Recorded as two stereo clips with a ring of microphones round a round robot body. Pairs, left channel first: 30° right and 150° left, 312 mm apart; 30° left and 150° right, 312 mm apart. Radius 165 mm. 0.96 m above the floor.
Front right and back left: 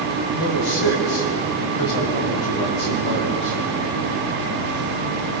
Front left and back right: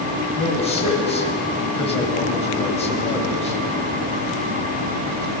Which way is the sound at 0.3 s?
45° right.